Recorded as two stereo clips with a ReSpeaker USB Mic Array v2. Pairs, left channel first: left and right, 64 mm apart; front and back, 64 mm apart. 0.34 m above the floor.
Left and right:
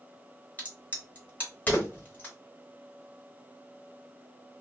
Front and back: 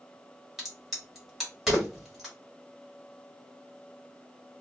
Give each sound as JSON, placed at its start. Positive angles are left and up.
{"t": 0.6, "sound": "a crack", "azimuth_deg": 95, "distance_m": 1.3}